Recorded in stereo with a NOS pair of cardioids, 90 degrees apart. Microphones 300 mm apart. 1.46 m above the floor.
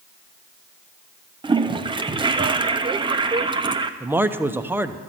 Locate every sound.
1.4 s a toilet flushing: 15° right, 0.6 m
4.0 s a man speaking: 5° right, 0.6 m